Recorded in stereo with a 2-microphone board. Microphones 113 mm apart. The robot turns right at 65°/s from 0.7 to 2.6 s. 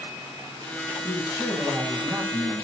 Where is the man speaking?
125° left, 10 m; by 2.6 s 130° right, 10 m.